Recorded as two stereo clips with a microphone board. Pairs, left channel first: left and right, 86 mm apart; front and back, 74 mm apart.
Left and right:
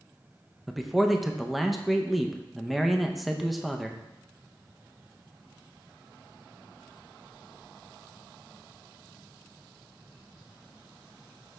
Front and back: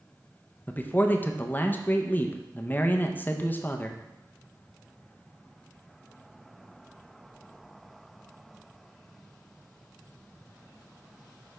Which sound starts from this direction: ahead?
A man speaking, at 0.7 s.